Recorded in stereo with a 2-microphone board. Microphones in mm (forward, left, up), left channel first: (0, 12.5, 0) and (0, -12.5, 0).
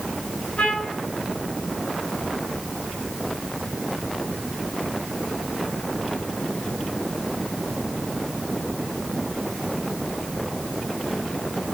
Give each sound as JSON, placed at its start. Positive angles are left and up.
{"t": 0.6, "sound": "a trumpet", "side_deg": 80, "distance_m": 7.5}